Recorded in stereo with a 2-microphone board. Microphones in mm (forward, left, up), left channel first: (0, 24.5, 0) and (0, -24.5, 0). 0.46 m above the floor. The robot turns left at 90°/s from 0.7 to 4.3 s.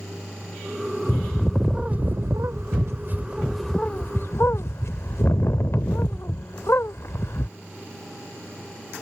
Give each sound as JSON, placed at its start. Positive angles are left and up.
{"t": 1.1, "sound": "a bird", "azimuth_deg": 40}